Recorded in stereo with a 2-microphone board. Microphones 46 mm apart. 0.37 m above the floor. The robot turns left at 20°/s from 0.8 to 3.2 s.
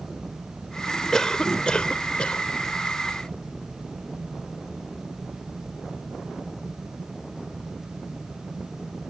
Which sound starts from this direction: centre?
A cough, at 1.1 s.